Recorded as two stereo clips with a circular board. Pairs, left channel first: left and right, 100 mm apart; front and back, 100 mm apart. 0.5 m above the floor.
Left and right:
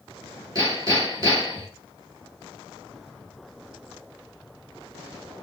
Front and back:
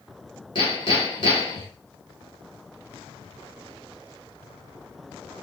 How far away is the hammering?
About 3 m.